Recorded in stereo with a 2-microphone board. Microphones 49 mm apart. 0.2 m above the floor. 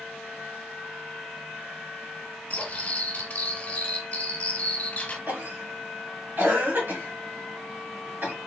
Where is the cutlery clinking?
30° left (ahead or behind), 1.4 m.